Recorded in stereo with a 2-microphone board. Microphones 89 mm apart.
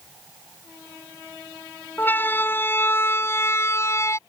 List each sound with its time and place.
2.0 s a siren: 20° left (ahead or behind); by 4.2 s 30° left (ahead or behind)